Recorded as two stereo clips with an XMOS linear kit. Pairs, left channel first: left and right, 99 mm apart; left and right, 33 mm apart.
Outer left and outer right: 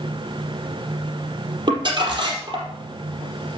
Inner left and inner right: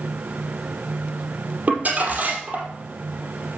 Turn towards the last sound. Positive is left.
turn(degrees=-45)  # may be behind; listen again after turning